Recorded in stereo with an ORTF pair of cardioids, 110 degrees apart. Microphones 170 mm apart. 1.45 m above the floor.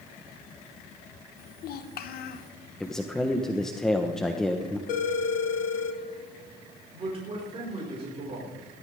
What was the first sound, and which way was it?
A child speaking, 65° left.